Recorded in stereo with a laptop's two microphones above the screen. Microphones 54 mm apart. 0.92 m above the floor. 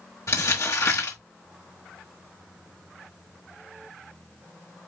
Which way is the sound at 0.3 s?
70° left (ahead or behind).